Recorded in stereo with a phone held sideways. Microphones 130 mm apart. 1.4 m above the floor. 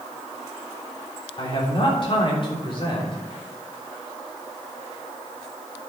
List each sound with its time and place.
1.4 s a man speaking: 45° left (ahead or behind), 3.5 m